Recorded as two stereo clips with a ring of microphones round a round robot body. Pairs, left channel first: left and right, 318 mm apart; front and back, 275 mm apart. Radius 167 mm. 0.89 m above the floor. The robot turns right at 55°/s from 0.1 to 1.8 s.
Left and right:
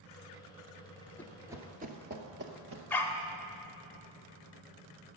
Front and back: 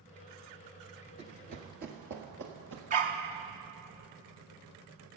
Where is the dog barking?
170° left, 0.6 m.